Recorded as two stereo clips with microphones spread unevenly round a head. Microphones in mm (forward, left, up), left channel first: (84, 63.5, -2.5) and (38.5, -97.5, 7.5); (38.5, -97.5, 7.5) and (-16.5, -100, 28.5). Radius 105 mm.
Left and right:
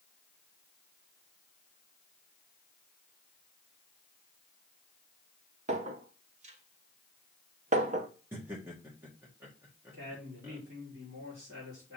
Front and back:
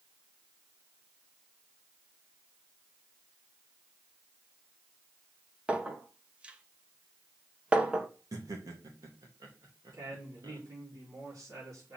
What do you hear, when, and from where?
5.7 s a clink: 140° right, 0.8 m
8.3 s laughter: 175° left, 1.5 m
9.9 s a woman speaking: 165° right, 3 m